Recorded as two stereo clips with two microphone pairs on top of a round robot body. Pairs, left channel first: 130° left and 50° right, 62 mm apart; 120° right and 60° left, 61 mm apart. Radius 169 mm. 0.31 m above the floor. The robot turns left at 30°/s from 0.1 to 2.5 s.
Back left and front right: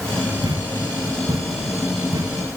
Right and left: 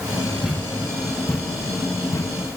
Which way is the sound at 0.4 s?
25° right.